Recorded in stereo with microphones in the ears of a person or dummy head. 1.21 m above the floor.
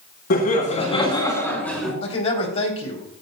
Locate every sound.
0.3 s laughter: 45° left (ahead or behind), 3 m; by 1.9 s centre (ahead or behind), 3 m
2.0 s a man speaking: 40° left (ahead or behind), 3 m